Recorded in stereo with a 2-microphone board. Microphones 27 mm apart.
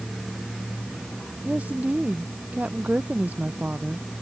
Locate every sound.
1.4 s a woman speaking: 80° right